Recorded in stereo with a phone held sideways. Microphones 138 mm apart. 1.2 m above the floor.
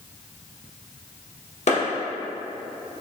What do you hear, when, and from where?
1.7 s a clap: 55° left (ahead or behind), 1.0 m